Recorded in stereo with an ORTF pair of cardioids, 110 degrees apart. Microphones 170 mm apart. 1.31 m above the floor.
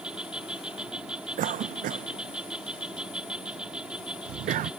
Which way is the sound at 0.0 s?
5° right.